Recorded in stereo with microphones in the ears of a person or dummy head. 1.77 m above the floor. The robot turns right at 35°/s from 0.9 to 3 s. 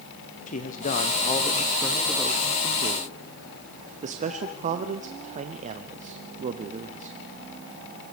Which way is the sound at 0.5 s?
140° left.